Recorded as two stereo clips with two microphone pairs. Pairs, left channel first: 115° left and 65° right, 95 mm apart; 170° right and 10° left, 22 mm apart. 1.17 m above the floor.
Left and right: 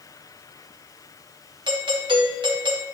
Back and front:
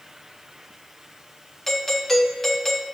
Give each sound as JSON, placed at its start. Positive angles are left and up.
{"t": 1.7, "sound": "a doorbell", "azimuth_deg": -90, "distance_m": 2.0}